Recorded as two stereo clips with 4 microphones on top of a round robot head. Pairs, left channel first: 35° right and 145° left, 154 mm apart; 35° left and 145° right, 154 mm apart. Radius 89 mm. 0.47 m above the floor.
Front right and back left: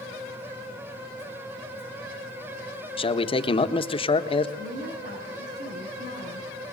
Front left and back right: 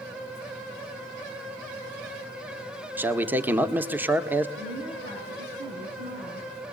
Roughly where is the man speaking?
Right.